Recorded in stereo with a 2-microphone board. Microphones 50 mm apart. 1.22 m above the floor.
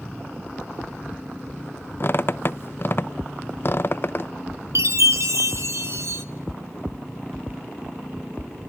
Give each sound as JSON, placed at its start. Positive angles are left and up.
{"t": 2.0, "sound": "a squeak", "side_deg": 45, "distance_m": 0.7}
{"t": 4.8, "sound": "a chime", "side_deg": -65, "distance_m": 1.1}